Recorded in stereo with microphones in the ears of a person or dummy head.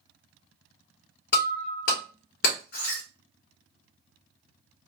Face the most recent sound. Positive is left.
turn(degrees=60)  # may be behind; listen again after turning